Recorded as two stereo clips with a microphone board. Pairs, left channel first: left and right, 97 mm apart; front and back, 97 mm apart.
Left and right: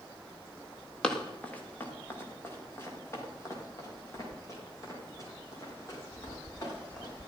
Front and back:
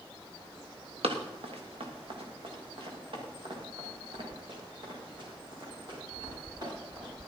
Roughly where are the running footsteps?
Behind.